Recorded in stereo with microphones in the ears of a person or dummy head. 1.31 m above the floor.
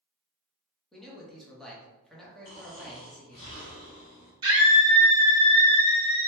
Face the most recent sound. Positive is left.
turn(degrees=-25)  # may be behind; listen again after turning